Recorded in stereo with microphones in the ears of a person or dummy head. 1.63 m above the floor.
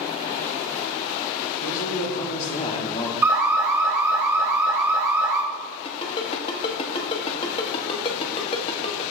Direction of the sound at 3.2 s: 10° right (ahead or behind).